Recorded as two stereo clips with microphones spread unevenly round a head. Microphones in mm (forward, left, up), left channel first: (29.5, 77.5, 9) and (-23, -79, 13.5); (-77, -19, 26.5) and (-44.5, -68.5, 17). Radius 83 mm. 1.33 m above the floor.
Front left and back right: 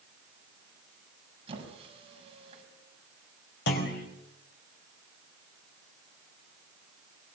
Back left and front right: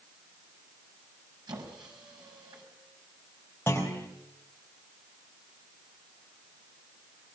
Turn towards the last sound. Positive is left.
turn(degrees=45)